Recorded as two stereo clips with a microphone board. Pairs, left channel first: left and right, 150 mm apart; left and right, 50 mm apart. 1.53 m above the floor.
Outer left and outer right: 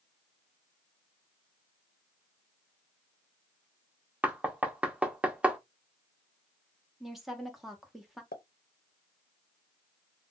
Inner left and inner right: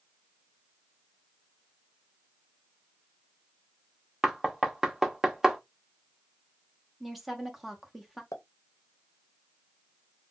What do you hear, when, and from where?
4.2 s knocking: 10° right (ahead or behind), 0.6 m
7.0 s a woman speaking: centre (ahead or behind), 0.9 m
8.3 s a pop: 75° left (ahead or behind), 0.6 m